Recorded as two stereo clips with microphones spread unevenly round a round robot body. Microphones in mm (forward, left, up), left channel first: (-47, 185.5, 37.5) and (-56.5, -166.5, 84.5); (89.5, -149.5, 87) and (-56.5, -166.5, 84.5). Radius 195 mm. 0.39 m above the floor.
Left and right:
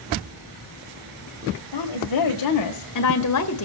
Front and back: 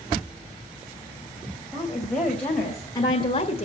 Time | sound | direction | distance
1.7 | a woman speaking | 100° left | 2.0 m